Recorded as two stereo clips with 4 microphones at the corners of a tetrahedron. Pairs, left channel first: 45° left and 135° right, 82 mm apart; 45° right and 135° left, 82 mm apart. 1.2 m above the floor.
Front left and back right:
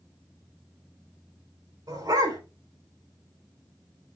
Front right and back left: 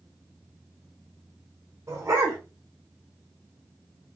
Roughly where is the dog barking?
Behind.